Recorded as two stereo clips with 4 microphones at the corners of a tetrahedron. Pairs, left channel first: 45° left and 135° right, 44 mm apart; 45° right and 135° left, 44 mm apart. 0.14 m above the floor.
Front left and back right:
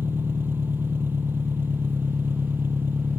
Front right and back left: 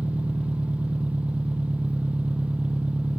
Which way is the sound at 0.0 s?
170° right.